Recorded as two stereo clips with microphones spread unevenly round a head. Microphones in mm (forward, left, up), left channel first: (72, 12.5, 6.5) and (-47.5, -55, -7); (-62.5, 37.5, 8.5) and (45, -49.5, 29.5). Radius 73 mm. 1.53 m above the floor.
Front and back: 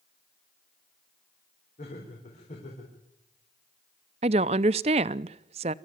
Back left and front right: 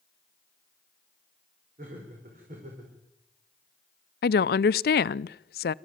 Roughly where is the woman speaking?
Behind left.